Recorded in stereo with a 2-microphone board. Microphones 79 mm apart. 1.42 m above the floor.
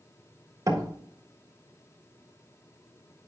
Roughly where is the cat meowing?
No cat meowing in this recording.